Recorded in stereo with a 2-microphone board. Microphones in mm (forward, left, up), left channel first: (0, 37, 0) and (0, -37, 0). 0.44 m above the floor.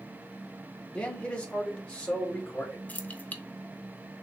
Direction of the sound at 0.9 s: 15° left (ahead or behind).